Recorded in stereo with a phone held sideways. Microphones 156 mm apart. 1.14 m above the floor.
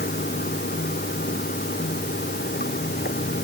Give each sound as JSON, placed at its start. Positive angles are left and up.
{"t": 0.0, "sound": "running water", "side_deg": 90}